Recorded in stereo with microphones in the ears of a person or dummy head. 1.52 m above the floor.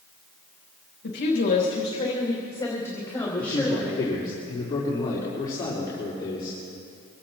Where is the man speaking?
25° left (ahead or behind), 4.5 m.